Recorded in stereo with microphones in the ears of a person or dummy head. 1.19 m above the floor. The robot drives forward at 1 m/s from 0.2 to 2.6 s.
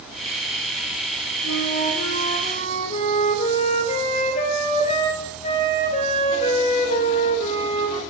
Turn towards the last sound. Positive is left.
turn(degrees=40)  # may be behind; listen again after turning